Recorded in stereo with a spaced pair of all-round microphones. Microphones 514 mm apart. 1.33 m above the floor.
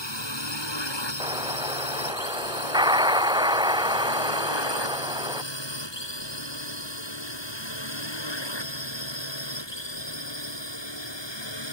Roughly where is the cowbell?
No cowbell in this recording.